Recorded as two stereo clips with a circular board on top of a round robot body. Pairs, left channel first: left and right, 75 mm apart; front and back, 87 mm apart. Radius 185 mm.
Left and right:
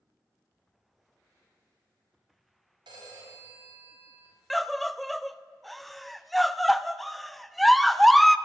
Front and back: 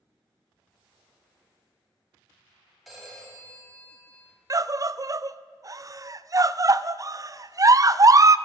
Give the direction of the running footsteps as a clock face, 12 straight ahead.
I don't hear running footsteps.